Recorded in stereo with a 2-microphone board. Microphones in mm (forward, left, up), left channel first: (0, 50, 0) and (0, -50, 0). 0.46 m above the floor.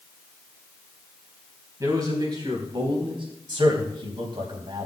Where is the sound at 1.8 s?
35° right (ahead or behind), 4 m; by 3.2 s 60° right (ahead or behind), 4 m.